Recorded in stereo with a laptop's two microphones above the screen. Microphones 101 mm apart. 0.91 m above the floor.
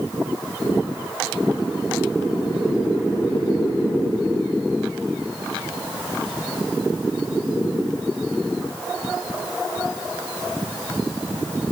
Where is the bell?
No bell in this recording.